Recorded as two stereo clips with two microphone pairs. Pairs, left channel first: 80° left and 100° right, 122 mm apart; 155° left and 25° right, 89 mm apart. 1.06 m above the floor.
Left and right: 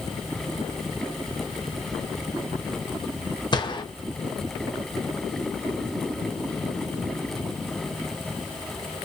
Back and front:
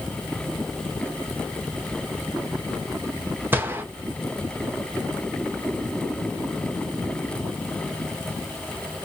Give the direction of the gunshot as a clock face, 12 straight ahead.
11 o'clock.